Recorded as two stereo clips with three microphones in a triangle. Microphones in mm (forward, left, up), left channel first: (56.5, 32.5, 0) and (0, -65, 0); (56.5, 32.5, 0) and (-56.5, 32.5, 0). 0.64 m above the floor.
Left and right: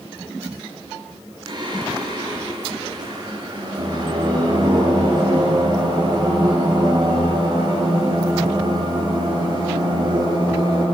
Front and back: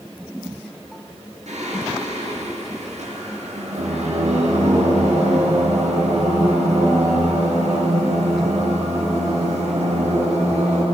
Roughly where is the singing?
Behind.